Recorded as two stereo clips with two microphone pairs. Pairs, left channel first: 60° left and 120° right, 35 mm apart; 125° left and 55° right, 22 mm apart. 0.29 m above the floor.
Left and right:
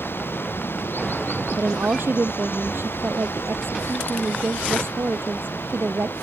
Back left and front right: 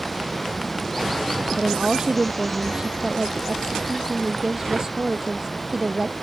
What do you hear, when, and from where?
0.0 s running water: 45° left
1.6 s a woman speaking: 110° right